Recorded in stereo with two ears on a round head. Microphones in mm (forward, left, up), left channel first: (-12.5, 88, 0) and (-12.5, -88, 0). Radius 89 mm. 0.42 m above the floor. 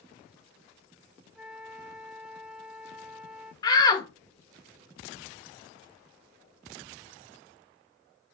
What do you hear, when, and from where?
1.4 s a flute: 5° right (ahead or behind), 0.7 m
3.6 s a shout: 20° left (ahead or behind), 0.9 m